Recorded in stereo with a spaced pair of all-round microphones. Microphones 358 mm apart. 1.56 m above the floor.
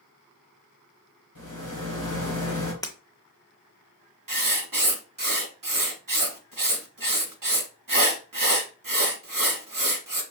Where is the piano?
I don't hear a piano.